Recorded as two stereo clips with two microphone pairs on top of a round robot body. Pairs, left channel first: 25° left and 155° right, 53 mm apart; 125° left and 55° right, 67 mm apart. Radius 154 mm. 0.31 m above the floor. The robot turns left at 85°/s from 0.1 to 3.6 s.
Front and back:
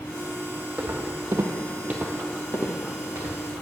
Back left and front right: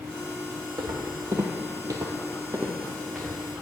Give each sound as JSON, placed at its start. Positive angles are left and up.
{"t": 0.8, "sound": "footsteps", "azimuth_deg": -80, "distance_m": 1.2}